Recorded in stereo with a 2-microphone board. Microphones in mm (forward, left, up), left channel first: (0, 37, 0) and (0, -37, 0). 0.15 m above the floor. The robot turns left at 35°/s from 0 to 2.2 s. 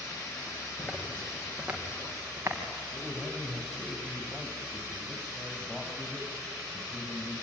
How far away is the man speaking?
About 4.5 m.